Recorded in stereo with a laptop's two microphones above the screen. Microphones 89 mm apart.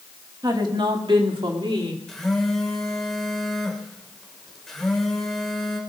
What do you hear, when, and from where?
0.4 s a woman speaking: 50° right (ahead or behind), 2 m; by 2.0 s 75° right (ahead or behind), 3 m
2.1 s a phone buzzing: 5° left (ahead or behind), 4 m